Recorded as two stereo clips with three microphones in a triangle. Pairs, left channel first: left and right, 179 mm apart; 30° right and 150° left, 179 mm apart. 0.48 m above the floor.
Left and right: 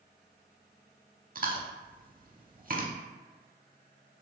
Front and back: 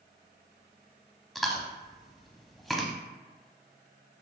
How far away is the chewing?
About 0.6 m.